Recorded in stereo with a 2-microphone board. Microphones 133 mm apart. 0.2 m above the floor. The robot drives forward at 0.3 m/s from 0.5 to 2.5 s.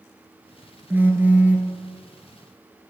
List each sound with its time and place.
0.9 s a phone buzzing: 15° right (ahead or behind), 0.8 m; by 1.7 s 10° right (ahead or behind), 1.1 m